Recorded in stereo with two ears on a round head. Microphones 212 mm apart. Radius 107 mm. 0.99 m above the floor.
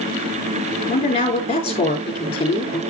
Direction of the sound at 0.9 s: 25° left (ahead or behind).